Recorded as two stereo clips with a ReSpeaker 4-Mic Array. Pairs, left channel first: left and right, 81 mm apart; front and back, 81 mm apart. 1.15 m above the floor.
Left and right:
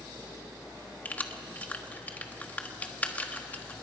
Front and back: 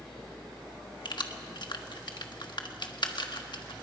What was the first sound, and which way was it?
Keys jangling, 20° left.